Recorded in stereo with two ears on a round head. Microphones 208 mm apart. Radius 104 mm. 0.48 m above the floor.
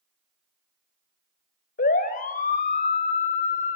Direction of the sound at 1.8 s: 40° left (ahead or behind).